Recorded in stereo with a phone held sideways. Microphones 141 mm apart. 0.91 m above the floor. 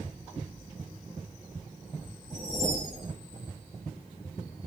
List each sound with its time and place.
2.3 s a whoosh: centre (ahead or behind), 2.5 m